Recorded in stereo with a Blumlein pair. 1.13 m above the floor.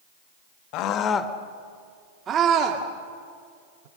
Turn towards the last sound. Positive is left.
turn(degrees=-50)